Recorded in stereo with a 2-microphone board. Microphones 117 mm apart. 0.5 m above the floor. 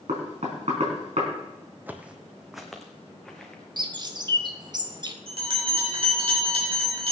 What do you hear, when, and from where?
0.1 s knocking: 70° right (ahead or behind), 4 m
1.9 s footsteps: 15° right (ahead or behind), 1.0 m; by 3.6 s 10° left (ahead or behind), 2.5 m
3.8 s a bird: 40° right (ahead or behind), 0.8 m
5.3 s a bell: 50° right (ahead or behind), 3.5 m